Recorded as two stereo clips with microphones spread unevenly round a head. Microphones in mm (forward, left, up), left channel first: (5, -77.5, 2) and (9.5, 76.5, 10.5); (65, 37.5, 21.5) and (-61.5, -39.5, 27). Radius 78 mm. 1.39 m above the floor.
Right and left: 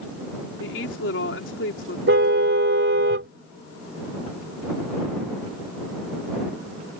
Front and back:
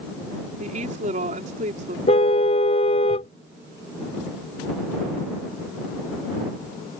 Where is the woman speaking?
105° right.